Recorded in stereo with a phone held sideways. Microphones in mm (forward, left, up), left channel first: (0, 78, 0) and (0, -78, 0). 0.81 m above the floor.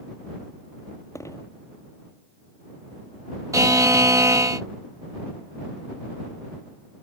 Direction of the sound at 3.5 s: 20° right (ahead or behind).